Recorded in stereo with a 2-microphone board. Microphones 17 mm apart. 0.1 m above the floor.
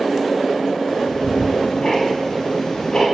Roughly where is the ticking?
Left.